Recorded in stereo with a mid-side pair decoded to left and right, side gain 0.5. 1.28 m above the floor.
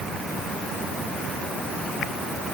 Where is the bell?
I don't hear a bell.